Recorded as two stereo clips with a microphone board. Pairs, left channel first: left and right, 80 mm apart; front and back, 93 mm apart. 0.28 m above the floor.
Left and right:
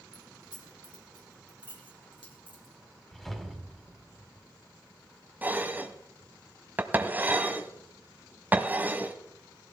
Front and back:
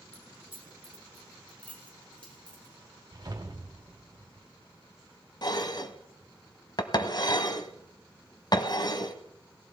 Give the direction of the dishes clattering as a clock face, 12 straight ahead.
1 o'clock.